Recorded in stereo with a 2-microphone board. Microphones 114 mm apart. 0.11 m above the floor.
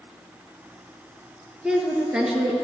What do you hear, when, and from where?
1.6 s a woman speaking: 10° right (ahead or behind), 1.5 m